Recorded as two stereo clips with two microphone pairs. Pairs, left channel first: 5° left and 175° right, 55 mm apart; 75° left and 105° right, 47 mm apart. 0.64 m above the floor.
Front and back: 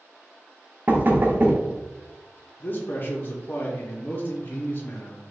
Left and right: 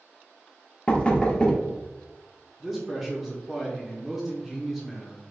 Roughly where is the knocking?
Behind left.